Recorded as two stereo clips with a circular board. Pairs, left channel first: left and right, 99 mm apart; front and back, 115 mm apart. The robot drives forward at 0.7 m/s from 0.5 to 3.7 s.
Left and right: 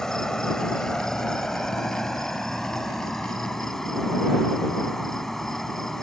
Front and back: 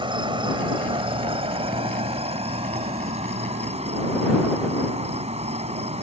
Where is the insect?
170° left; by 6.0 s 175° left.